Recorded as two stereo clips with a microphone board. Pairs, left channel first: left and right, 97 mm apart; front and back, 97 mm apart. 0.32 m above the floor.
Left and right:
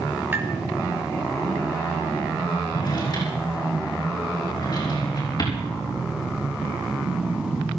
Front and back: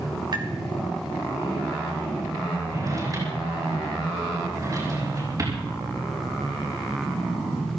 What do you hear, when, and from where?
0.3 s tapping: 155° right, 3 m
2.7 s a drawer: 130° left, 6 m